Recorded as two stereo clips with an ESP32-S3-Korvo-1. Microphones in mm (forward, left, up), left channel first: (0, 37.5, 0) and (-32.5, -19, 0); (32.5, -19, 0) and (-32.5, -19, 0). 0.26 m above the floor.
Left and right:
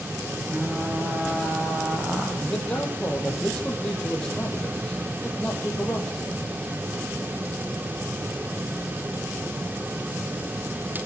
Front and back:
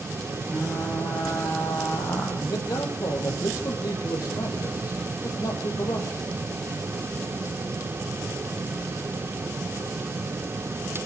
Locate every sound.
0.5 s frying: 40° right, 9.5 m
2.4 s a man speaking: 15° right, 8 m